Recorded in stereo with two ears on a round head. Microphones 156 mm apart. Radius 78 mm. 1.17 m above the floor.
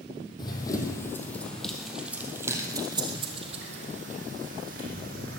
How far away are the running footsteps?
About 2.5 m.